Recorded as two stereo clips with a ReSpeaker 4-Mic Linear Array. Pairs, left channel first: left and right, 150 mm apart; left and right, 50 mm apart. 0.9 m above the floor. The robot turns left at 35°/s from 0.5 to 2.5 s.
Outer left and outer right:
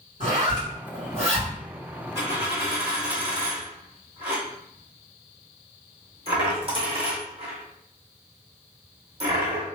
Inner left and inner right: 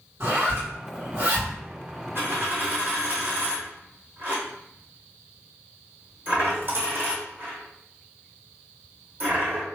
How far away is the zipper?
About 1.9 m.